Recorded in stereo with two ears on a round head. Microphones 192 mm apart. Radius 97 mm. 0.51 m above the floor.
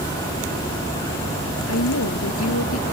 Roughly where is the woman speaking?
Left.